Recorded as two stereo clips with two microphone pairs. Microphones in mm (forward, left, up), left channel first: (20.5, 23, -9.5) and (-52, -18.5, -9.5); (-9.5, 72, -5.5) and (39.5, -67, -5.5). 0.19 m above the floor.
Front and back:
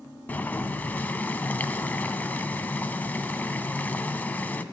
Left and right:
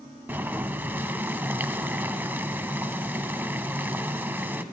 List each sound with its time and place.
0.3 s boiling: 10° right, 0.5 m